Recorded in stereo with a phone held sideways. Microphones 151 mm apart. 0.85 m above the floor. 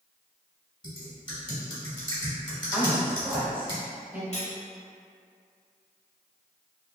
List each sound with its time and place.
0.8 s typing on a keyboard: 30° left (ahead or behind), 1.0 m
2.7 s a woman speaking: 10° right (ahead or behind), 0.8 m
4.3 s cutlery clinking: 45° left (ahead or behind), 0.7 m